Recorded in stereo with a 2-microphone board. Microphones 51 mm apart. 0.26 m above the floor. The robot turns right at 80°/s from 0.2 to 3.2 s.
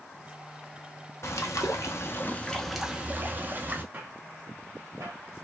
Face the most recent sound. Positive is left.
turn(degrees=-80)